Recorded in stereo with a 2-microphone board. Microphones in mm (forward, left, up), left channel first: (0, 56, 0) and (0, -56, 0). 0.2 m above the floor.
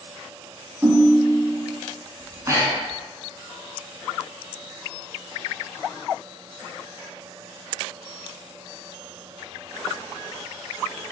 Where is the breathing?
30° right (ahead or behind), 0.8 m.